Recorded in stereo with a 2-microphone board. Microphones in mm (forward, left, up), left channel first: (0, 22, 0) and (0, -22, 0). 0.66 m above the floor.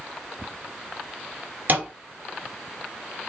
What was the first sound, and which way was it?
A thud, 40° right (ahead or behind).